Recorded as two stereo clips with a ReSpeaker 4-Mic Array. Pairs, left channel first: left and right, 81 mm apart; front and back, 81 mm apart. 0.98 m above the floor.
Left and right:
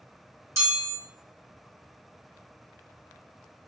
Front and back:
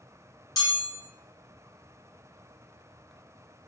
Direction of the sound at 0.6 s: 40° right.